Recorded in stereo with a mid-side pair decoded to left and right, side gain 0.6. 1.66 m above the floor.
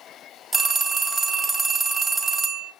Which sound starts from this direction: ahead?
A phone ringing, at 0.5 s.